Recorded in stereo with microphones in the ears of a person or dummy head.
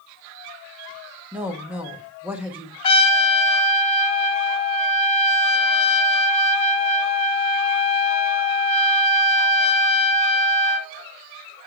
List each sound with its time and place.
1.3 s a woman speaking: 10° right (ahead or behind), 1.5 m
2.8 s a trumpet: 35° left (ahead or behind), 1.2 m